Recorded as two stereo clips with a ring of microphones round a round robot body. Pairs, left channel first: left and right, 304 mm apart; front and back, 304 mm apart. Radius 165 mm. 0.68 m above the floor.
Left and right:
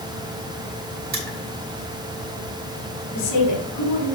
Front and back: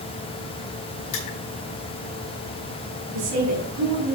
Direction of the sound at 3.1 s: 135° left.